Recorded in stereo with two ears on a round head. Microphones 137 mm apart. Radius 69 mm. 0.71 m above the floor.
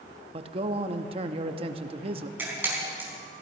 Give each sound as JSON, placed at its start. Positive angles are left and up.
{"t": 0.3, "sound": "a man speaking", "side_deg": -40, "distance_m": 0.8}
{"t": 2.4, "sound": "a camera shutter", "side_deg": -15, "distance_m": 4.5}